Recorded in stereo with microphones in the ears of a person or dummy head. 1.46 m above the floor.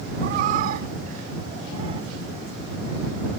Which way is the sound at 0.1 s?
55° right (ahead or behind).